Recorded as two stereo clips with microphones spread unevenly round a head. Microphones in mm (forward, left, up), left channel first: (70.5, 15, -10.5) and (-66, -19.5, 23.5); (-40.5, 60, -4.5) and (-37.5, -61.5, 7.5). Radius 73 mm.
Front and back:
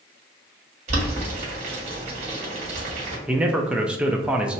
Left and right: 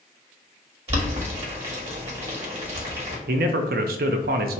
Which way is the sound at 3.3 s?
80° right.